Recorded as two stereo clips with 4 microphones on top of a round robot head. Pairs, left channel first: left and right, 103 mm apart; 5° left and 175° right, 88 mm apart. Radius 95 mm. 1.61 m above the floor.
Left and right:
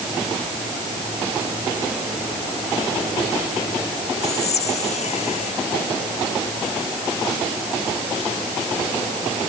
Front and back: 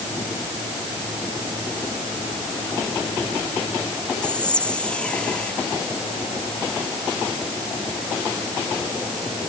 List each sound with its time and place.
4.2 s whispering: 85° left